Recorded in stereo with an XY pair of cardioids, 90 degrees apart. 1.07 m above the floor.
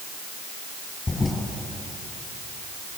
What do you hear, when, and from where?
1.1 s a toilet flushing: 25° left, 8 m